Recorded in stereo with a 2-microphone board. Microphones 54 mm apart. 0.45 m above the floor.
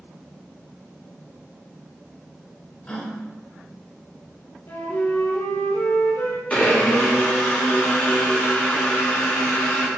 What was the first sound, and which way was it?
A gasp, 25° left (ahead or behind).